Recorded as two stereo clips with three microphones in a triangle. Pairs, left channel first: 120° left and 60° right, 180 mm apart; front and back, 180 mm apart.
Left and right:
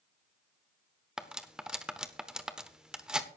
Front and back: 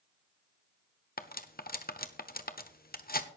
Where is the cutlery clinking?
25° left, 1.0 m.